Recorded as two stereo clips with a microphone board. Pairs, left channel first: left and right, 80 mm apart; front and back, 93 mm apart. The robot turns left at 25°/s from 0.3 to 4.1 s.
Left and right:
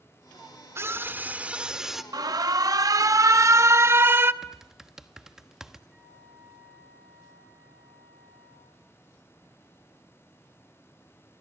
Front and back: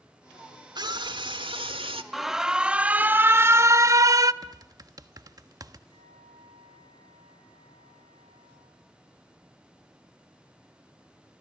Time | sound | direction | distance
0.8 | a scream | 145° right | 1.7 m
2.1 | an alarm | 90° right | 0.6 m
4.4 | typing on a keyboard | 170° right | 1.2 m
5.9 | a flute | 170° right | 6 m